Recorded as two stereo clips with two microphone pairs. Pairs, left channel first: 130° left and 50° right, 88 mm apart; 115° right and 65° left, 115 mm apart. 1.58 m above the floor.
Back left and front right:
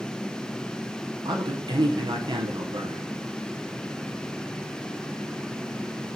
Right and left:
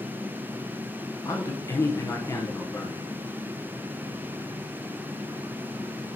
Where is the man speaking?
50° right, 0.8 m.